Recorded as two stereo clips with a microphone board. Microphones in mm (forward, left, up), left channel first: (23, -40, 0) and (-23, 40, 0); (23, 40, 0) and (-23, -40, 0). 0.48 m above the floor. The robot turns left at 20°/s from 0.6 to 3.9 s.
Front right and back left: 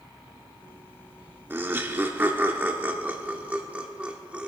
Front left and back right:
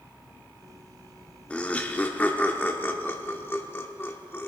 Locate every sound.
1.5 s laughter: 115° left, 0.9 m; by 4.5 s 65° left, 0.9 m